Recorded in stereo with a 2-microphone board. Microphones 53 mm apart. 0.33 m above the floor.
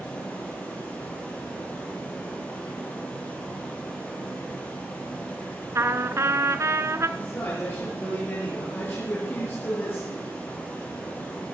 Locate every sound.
0.0 s running water: 25° left (ahead or behind), 6.5 m
5.8 s a trumpet: 65° right (ahead or behind), 0.8 m
7.2 s a man speaking: 45° left (ahead or behind), 5.5 m